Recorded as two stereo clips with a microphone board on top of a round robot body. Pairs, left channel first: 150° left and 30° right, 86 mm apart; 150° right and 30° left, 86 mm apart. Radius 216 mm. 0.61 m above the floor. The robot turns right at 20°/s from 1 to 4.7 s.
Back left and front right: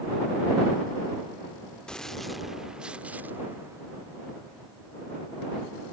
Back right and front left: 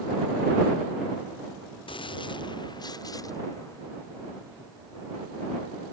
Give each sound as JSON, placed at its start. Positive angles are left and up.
{"t": 1.9, "sound": "a gunshot", "azimuth_deg": -130}